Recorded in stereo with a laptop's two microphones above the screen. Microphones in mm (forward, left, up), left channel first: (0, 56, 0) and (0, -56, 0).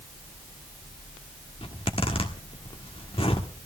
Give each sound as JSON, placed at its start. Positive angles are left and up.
{"t": 1.6, "sound": "a zipper", "side_deg": 55, "distance_m": 1.4}